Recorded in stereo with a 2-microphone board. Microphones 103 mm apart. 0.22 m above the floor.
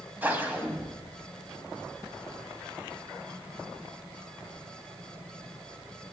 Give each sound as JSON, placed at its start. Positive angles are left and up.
{"t": 0.2, "sound": "a whoosh", "side_deg": -15, "distance_m": 1.1}